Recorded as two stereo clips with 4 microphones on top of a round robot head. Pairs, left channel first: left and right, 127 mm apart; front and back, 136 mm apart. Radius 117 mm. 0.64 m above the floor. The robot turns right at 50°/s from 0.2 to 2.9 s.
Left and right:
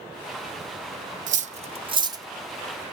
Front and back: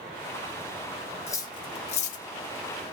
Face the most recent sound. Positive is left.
turn(degrees=10)